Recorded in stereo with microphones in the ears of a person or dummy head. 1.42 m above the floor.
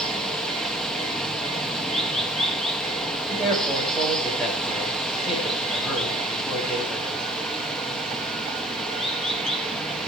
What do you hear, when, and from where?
0.0 s running water: 5° left (ahead or behind), 1.5 m
3.3 s a man speaking: centre (ahead or behind), 5.5 m